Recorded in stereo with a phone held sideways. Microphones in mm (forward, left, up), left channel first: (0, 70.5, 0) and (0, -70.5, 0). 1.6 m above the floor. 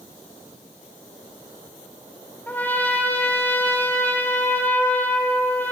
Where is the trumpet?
15° left (ahead or behind), 2.5 m.